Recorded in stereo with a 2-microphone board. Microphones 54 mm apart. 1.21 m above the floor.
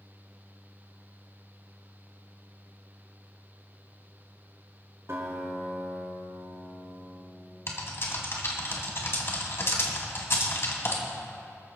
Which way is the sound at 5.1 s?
60° right (ahead or behind).